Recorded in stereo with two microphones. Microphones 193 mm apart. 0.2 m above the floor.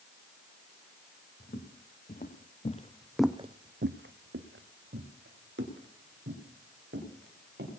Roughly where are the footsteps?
Left.